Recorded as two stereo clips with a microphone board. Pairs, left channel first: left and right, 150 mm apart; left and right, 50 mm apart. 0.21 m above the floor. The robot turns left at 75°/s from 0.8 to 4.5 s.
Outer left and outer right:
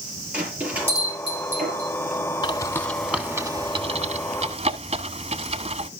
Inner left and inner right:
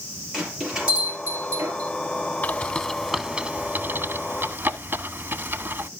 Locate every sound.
0.3 s a bell: 10° right (ahead or behind), 5 m; by 1.9 s 75° right (ahead or behind), 5 m
2.4 s a bird: 30° left (ahead or behind), 0.9 m; by 5.9 s 45° right (ahead or behind), 0.9 m